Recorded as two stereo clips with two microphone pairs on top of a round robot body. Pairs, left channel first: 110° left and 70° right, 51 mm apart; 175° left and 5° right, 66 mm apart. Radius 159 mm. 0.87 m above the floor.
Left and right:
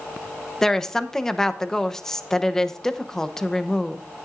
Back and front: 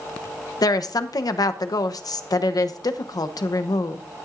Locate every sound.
0.6 s a woman speaking: 170° right, 0.9 m